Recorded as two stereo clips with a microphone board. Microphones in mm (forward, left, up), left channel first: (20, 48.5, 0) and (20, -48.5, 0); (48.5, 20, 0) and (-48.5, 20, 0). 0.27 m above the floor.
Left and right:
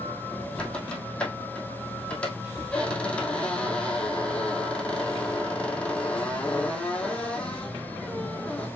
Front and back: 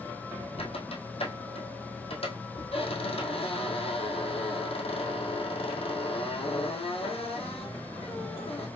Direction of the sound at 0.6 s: 10° left.